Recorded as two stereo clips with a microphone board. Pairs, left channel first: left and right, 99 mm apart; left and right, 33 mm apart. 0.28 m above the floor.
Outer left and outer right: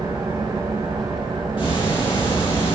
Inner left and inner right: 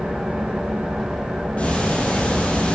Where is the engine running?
45° right (ahead or behind), 5.5 m.